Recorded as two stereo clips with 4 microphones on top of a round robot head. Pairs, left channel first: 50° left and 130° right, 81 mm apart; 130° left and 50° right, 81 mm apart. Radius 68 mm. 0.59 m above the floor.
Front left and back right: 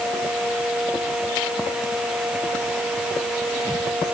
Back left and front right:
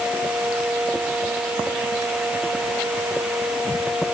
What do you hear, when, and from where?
Only background noise.